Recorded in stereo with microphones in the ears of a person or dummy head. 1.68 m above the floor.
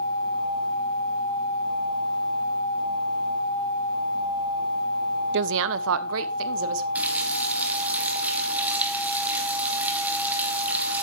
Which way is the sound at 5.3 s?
60° right (ahead or behind).